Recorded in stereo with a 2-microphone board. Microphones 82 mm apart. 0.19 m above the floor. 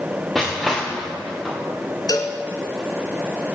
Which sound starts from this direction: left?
A cowbell, at 2.1 s.